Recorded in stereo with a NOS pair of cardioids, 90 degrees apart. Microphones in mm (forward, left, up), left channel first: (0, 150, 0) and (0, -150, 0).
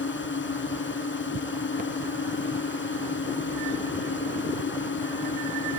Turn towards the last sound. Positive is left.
turn(degrees=40)